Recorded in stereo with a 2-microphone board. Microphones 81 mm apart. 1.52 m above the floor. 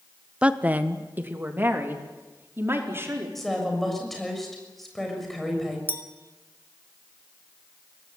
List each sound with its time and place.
0.4 s a woman speaking: 15° right (ahead or behind), 1.1 m; by 3.2 s 30° right (ahead or behind), 5 m
3.4 s a woman speaking: centre (ahead or behind), 6.5 m
5.9 s a clink: 25° right (ahead or behind), 1.9 m